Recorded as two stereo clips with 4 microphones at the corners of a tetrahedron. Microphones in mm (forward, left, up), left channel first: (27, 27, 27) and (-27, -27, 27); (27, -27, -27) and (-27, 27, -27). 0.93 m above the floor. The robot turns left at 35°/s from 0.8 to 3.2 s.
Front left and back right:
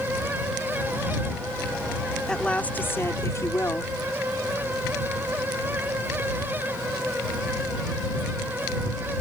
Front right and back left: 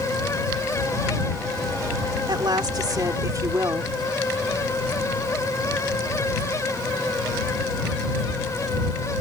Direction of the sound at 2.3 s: 125° left.